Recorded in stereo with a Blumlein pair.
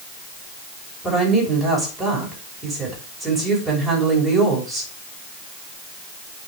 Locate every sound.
1.0 s a woman speaking: 5° right, 6 m